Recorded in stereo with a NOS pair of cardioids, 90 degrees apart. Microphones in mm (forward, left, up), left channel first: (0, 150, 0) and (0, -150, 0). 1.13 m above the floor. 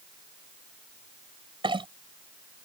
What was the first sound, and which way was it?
A clink, 15° right.